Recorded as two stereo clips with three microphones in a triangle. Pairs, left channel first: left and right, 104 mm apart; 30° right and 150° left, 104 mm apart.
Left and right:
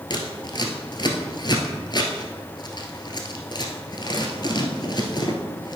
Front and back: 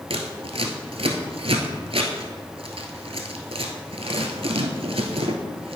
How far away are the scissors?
About 1.3 m.